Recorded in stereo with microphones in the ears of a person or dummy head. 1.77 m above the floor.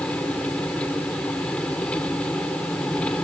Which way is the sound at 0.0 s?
10° left (ahead or behind).